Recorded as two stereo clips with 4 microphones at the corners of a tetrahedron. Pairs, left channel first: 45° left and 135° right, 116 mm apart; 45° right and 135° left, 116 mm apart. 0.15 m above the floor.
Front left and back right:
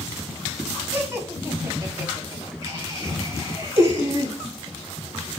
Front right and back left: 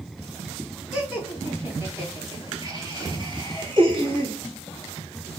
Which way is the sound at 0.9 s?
160° right.